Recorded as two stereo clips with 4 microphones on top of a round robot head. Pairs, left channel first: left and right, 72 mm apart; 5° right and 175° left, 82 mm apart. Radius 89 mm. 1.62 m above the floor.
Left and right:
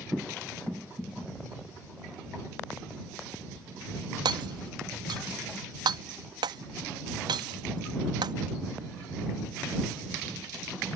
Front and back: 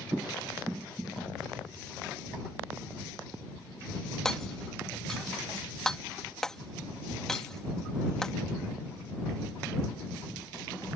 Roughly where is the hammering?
Right.